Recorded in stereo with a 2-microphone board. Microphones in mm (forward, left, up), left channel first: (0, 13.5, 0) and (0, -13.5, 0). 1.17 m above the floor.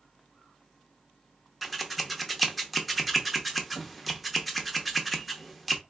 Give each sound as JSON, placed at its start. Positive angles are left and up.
{"t": 1.6, "sound": "scissors", "side_deg": -5, "distance_m": 0.7}